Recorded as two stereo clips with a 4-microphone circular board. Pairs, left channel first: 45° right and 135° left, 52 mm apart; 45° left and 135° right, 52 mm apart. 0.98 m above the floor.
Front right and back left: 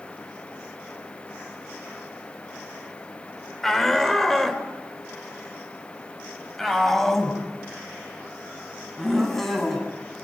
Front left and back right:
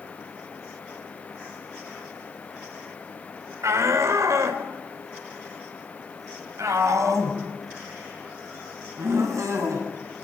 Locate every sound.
3.6 s a shout: 130° right, 4 m